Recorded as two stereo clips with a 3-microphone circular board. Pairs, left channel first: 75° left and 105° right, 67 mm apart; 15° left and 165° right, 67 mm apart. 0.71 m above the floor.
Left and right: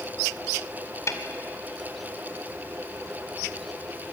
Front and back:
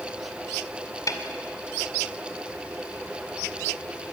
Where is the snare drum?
35° left, 1.9 m.